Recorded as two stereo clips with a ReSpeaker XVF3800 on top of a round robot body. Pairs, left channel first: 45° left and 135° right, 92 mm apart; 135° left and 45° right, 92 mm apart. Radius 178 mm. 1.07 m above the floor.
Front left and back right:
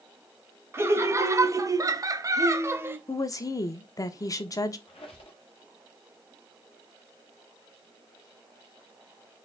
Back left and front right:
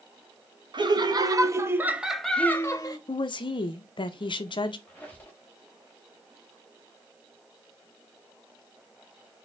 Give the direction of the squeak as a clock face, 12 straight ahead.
10 o'clock.